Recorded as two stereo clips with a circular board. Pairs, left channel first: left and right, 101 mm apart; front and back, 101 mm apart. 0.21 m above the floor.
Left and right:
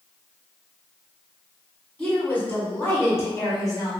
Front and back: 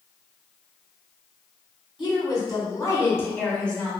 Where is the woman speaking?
15° left, 1.7 m; by 3.9 s 85° left, 1.3 m.